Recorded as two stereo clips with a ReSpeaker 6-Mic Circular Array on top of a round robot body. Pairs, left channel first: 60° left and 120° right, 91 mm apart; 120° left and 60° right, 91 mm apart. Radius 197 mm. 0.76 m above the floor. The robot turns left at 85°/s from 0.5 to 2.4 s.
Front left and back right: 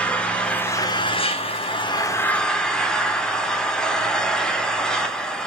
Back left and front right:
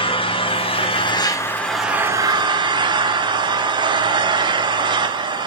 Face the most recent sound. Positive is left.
turn(degrees=-25)